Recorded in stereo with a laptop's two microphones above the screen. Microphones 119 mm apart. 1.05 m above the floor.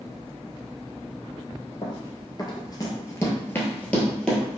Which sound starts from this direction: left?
Running footsteps, at 1.8 s.